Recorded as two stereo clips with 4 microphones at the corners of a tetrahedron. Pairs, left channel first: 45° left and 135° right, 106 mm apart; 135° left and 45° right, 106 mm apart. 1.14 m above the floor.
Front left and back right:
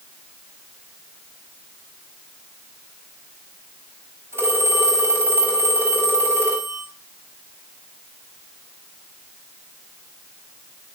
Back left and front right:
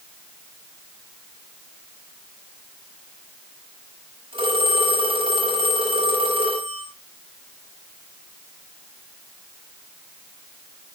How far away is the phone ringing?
About 6.5 m.